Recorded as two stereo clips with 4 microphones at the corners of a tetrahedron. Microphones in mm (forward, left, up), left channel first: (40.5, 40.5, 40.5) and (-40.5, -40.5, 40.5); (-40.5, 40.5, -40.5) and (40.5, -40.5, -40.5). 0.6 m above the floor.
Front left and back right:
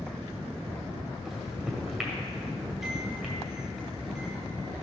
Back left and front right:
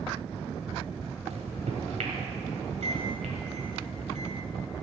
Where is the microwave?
50° right, 1.9 m.